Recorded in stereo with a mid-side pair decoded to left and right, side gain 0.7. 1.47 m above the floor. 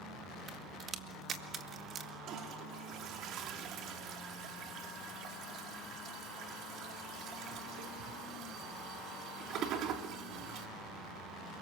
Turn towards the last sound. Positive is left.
turn(degrees=-55)